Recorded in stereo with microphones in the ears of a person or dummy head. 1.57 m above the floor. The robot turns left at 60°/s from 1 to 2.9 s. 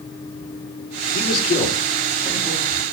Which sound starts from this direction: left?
A man speaking, at 1.1 s.